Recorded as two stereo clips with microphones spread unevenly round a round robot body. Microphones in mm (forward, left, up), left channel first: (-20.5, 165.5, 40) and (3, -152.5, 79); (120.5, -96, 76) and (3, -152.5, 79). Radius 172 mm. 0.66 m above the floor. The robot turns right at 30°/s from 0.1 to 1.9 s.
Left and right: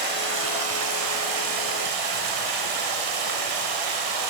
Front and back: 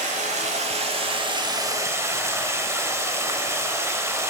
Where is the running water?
140° right, 0.7 m; by 4.3 s 85° right, 0.7 m.